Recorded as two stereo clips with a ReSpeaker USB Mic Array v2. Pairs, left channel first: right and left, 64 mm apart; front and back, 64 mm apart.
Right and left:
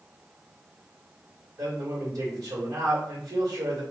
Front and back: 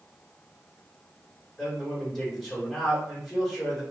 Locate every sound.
1.6 s a man speaking: 90° left, 1.4 m